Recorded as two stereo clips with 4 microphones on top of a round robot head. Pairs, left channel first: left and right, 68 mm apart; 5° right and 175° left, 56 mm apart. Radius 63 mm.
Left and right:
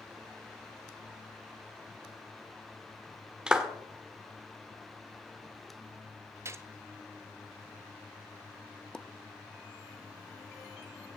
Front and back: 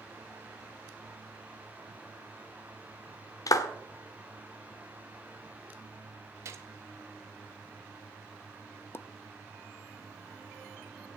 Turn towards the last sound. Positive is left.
turn(degrees=15)